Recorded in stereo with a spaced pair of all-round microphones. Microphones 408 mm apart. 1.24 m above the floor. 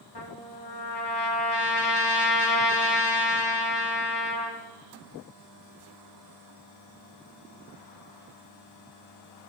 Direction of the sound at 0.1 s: 70° left (ahead or behind).